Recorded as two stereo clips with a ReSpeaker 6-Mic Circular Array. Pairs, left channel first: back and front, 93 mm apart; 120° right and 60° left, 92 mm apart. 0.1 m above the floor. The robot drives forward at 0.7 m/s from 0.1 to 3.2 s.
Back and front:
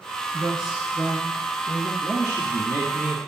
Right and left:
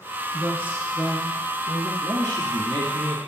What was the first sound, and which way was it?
A woman speaking, 60° left.